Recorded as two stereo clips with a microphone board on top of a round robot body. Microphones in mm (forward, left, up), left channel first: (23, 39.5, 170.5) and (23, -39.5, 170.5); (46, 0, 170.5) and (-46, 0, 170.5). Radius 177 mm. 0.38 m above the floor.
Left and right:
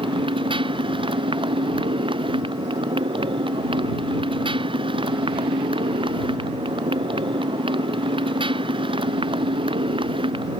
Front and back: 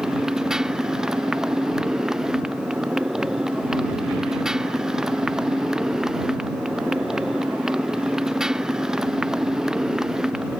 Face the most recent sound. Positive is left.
turn(degrees=-100)